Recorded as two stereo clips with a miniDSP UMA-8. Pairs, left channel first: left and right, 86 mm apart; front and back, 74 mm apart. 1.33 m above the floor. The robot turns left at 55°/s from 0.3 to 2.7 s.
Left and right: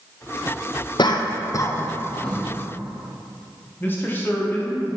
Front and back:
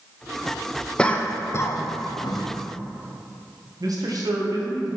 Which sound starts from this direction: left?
A cough, at 1.0 s.